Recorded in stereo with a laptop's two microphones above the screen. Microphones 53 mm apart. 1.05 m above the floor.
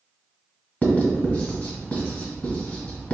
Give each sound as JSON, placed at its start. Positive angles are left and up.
{"t": 0.8, "sound": "writing", "side_deg": 30, "distance_m": 1.5}